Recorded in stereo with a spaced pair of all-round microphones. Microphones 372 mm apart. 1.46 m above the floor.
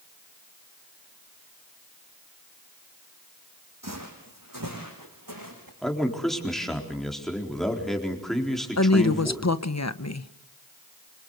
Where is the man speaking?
Centre (ahead or behind), 4 m.